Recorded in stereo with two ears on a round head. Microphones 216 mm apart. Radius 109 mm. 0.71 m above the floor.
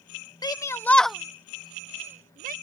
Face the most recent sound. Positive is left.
turn(degrees=-35)  # may be behind; listen again after turning